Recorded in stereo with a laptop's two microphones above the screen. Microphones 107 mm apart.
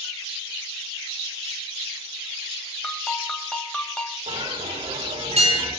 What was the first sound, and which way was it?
A ringtone, 5° left (ahead or behind).